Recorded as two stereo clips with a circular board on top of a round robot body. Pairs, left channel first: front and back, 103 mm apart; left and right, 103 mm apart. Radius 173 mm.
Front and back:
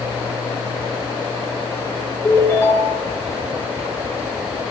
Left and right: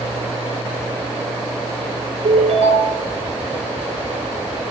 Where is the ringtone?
70° right, 8 m.